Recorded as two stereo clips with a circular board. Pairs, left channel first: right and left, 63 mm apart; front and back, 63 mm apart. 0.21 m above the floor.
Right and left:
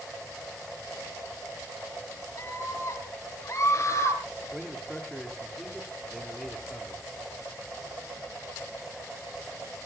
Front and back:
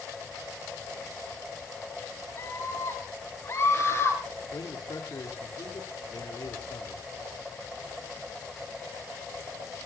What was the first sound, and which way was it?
A scream, 55° right.